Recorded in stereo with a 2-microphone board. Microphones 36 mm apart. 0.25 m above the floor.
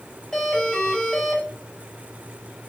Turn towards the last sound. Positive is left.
turn(degrees=15)  # may be behind; listen again after turning